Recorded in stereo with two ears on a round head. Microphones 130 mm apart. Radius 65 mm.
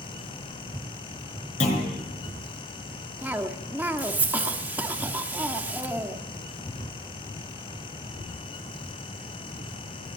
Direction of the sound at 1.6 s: 50° left (ahead or behind).